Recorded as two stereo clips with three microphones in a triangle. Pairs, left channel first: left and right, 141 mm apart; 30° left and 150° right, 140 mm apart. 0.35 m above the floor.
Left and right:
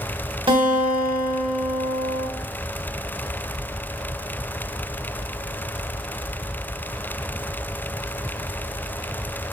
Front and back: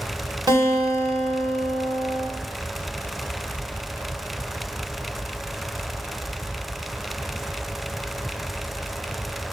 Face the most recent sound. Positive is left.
turn(degrees=-105)